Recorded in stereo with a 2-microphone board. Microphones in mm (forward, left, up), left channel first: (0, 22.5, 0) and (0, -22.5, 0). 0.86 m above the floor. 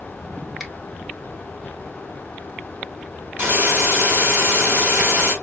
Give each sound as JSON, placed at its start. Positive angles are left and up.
{"t": 0.6, "sound": "a finger snap", "side_deg": -10, "distance_m": 1.4}
{"t": 3.4, "sound": "a hiss", "side_deg": -45, "distance_m": 3.0}